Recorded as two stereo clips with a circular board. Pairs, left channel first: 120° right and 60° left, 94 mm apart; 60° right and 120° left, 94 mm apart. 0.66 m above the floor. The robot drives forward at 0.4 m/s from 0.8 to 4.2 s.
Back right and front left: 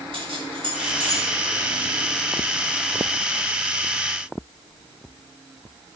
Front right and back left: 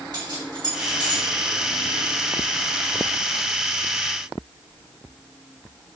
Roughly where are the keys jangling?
Left.